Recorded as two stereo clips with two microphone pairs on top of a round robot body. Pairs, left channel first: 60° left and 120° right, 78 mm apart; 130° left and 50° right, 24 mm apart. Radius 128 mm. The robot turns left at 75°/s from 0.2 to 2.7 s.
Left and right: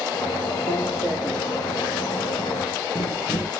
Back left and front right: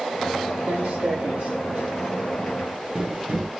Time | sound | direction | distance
0.7 | footsteps | 25° right | 1.7 m